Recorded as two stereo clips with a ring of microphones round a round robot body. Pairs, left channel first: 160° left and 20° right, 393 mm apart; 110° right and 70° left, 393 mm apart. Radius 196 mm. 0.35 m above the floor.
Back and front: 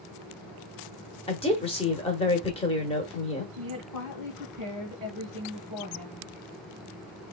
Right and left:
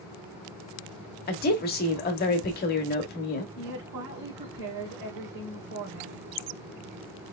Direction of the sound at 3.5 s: 75° left.